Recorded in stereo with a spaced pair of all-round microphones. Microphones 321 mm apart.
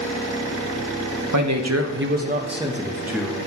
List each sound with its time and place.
1.3 s a man speaking: 65° right (ahead or behind), 0.7 m; by 3.5 s centre (ahead or behind), 1.3 m